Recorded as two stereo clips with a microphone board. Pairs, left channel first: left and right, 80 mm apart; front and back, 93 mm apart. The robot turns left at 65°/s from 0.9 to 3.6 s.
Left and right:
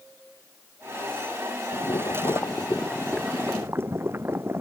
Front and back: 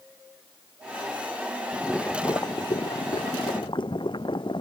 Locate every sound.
1.7 s boiling: 90° left; by 4.6 s 30° right